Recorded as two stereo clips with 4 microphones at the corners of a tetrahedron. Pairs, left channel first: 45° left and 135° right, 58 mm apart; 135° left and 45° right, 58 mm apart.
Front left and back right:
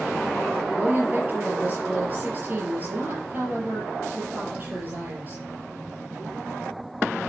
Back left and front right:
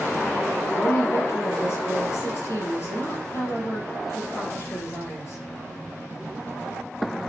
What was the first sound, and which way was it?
A woman speaking, 170° left.